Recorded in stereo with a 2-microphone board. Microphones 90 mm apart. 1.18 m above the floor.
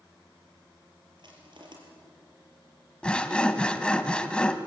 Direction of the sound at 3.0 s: 10° left (ahead or behind).